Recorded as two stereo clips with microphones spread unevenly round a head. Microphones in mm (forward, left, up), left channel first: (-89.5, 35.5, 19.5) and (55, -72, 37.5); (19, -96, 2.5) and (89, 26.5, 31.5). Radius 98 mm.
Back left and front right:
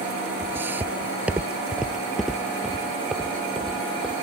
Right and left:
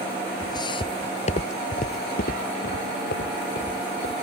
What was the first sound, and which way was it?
Footsteps, 70° right.